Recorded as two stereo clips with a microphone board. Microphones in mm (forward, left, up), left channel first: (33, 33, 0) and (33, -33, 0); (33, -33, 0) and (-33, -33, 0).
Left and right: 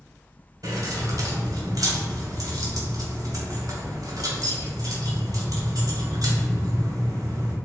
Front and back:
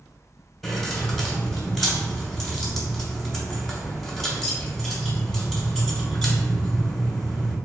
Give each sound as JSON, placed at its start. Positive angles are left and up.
{"t": 0.6, "sound": "keys jangling", "azimuth_deg": -85, "distance_m": 1.3}